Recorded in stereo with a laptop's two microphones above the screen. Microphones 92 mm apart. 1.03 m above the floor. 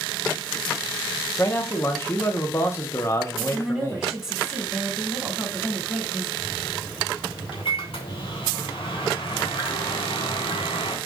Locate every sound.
1.4 s a man speaking: 30° left (ahead or behind), 0.8 m
3.4 s a woman speaking: 5° right (ahead or behind), 3 m
6.4 s a microwave: 70° left (ahead or behind), 2.5 m